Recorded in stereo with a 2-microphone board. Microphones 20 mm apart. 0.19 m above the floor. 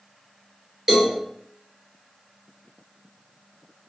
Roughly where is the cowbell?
Right.